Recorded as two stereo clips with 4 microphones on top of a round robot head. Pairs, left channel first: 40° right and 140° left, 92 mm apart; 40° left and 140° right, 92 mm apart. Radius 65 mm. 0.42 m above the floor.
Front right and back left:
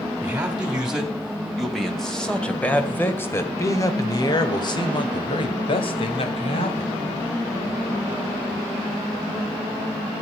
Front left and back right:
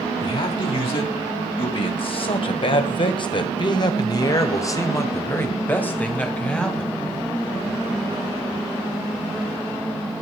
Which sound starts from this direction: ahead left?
A man speaking, at 0.2 s.